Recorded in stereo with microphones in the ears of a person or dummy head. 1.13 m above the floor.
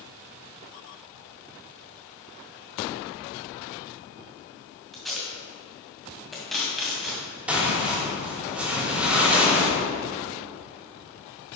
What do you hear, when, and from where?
4.9 s tape being pulled: 5° left (ahead or behind), 2.0 m
7.5 s tearing paper: 10° right (ahead or behind), 3 m